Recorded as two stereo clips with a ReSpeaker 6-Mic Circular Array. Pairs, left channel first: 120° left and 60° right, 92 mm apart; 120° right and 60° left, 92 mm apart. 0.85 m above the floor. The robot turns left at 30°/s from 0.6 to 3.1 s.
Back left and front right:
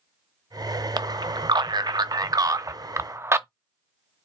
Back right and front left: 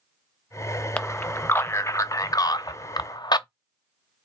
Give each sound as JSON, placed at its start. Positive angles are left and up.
{"t": 1.0, "sound": "a man speaking", "azimuth_deg": -50, "distance_m": 0.5}